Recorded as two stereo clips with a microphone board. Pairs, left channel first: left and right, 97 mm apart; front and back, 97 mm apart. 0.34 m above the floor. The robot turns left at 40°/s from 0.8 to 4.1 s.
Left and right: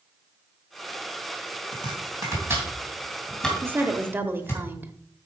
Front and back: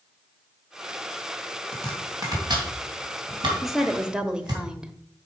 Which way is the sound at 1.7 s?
120° right.